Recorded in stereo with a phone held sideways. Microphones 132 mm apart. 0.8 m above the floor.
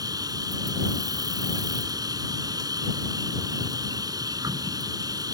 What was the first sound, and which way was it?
An insect, 30° right (ahead or behind).